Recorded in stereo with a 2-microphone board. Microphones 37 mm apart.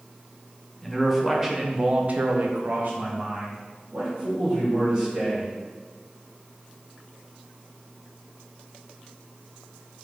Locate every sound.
0.8 s a man speaking: centre (ahead or behind), 1.1 m; by 5.5 s 30° right (ahead or behind), 2.5 m